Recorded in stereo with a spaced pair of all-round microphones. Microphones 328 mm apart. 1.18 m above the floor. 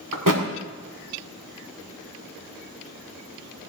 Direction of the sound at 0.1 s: 70° right (ahead or behind).